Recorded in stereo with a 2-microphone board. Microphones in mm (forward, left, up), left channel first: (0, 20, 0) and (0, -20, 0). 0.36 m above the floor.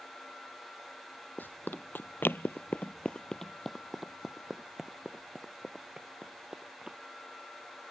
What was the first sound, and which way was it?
Running footsteps, 50° left (ahead or behind).